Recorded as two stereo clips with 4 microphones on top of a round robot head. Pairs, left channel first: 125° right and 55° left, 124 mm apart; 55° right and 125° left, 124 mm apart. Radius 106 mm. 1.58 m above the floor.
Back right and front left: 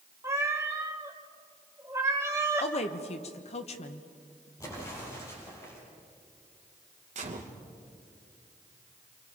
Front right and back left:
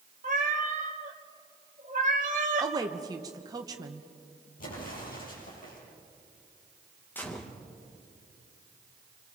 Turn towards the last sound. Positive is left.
turn(degrees=25)